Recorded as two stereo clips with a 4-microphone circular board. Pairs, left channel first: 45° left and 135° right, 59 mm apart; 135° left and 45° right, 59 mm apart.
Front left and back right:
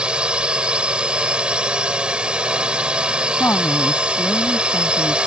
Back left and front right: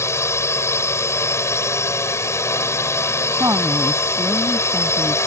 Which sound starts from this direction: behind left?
A drone, at 0.0 s.